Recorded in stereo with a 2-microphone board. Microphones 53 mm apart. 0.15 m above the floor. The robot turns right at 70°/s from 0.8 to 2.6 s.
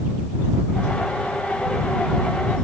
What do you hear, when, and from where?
Only background noise.